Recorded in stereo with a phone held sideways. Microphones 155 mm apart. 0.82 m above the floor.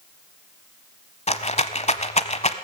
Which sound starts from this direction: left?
A rattle, at 1.3 s.